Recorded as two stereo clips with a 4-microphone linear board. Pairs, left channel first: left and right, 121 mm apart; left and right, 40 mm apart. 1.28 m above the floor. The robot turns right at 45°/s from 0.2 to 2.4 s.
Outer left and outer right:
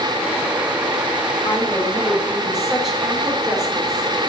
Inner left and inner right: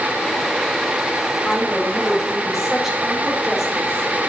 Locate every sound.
1.4 s a woman speaking: 140° left, 3.5 m; by 4.1 s straight behind, 3.5 m